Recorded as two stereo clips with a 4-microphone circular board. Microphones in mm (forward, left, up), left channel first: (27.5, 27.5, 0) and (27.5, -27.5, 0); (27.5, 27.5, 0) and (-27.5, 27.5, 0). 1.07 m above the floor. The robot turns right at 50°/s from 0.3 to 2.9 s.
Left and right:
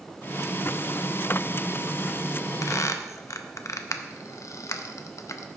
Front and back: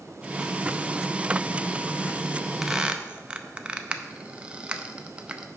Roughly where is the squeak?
Left.